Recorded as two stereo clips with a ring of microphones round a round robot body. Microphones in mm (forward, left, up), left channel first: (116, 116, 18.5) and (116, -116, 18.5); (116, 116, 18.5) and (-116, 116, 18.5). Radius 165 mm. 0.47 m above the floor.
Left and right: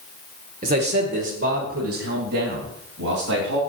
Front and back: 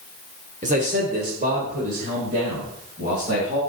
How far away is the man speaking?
About 1.2 m.